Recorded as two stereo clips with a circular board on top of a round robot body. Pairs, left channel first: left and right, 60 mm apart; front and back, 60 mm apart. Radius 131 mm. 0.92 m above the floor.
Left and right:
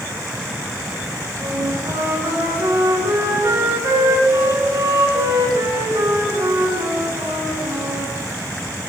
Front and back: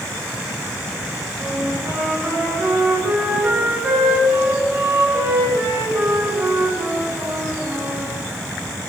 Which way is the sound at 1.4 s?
120° right.